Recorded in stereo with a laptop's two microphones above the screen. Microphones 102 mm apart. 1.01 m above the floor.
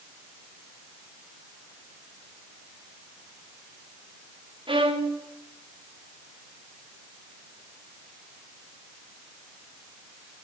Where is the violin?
55° right (ahead or behind), 1.5 m.